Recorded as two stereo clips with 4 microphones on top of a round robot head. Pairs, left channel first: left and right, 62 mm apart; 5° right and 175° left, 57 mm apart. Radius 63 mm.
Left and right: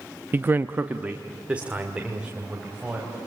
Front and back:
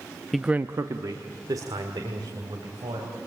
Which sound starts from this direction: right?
A man speaking, at 0.3 s.